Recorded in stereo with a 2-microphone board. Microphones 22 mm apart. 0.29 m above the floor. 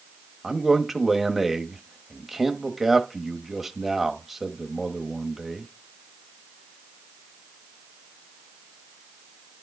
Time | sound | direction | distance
0.4 | a man speaking | 10° right (ahead or behind) | 1.1 m